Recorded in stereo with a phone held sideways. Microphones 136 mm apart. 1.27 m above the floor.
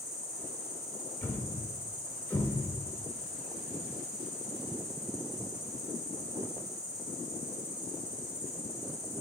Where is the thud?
15° left (ahead or behind), 1.0 m.